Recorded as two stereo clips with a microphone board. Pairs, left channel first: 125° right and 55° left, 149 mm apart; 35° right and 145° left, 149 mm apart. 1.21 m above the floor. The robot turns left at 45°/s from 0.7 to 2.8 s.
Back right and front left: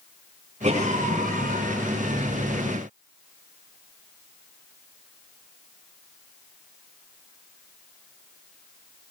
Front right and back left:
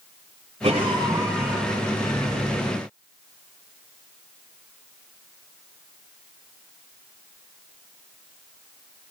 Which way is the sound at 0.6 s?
95° left.